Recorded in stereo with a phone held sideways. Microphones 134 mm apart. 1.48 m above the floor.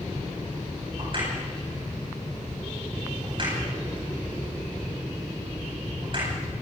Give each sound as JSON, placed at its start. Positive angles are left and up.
{"t": 1.0, "sound": "a crack", "side_deg": -40, "distance_m": 10.0}